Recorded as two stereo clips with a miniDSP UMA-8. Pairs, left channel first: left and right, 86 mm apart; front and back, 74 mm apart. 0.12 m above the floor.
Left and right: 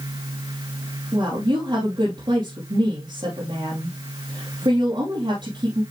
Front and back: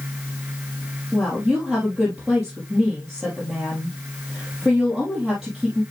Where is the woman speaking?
95° right, 3 m.